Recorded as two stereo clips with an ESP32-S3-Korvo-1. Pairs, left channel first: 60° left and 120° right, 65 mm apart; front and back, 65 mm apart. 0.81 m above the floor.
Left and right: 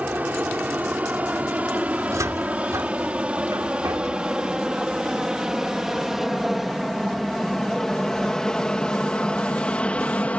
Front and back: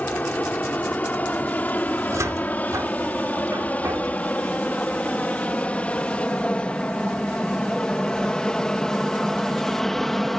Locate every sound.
0.0 s an aircraft: 60° right; by 10.4 s 80° left
2.0 s a cupboard door: 150° right